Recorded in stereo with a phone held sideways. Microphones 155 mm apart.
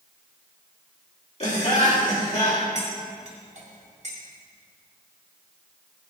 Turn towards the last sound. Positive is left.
turn(degrees=-50)  # may be behind; listen again after turning